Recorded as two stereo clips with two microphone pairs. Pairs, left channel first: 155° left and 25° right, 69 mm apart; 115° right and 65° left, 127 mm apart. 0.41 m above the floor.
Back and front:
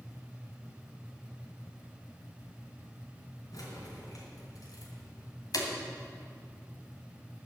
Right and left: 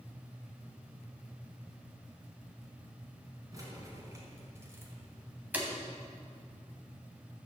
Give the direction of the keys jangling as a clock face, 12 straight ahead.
8 o'clock.